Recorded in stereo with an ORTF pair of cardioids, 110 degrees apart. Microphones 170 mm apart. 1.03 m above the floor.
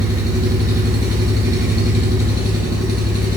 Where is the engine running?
20° right, 6 m.